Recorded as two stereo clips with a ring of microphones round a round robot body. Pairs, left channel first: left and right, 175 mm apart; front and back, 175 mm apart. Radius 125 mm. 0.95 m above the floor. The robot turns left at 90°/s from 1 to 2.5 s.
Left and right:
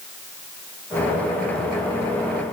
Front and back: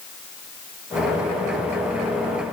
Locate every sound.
Only background noise.